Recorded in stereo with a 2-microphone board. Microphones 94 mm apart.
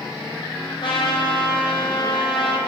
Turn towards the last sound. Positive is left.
turn(degrees=55)  # may be behind; listen again after turning